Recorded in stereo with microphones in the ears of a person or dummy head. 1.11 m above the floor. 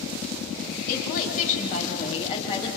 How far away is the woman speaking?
About 6 m.